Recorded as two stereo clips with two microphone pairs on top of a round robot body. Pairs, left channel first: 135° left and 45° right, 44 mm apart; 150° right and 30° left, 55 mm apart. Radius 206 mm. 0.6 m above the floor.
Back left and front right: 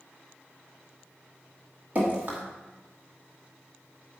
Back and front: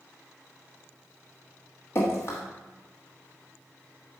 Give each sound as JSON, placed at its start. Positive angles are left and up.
{"t": 1.9, "sound": "dripping", "azimuth_deg": -100, "distance_m": 0.9}